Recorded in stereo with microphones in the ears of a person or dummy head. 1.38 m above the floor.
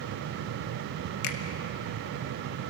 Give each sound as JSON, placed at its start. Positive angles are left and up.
{"t": 1.2, "sound": "a finger snap", "side_deg": 60, "distance_m": 1.5}